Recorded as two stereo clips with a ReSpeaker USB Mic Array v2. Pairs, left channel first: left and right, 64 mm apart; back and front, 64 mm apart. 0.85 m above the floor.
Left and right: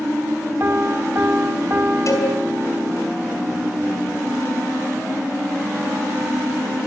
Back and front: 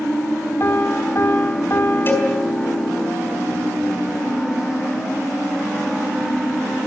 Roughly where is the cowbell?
Behind left.